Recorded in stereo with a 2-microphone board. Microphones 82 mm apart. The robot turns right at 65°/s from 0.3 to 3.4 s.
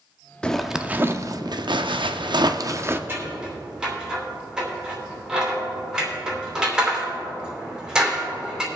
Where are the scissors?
25° right (ahead or behind), 3 m; by 8.7 s 10° right (ahead or behind), 3 m.